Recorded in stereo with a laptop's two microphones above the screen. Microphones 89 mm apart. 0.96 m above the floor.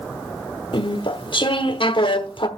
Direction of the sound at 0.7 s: 60° left (ahead or behind).